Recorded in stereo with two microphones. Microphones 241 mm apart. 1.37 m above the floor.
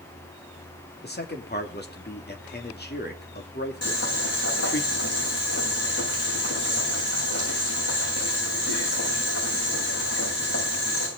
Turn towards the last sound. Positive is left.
turn(degrees=75)  # may be behind; listen again after turning